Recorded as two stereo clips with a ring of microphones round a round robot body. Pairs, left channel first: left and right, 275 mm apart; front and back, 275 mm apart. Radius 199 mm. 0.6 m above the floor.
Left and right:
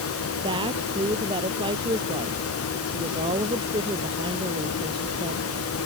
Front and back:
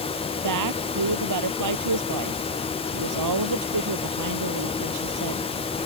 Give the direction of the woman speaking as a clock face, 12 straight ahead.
6 o'clock.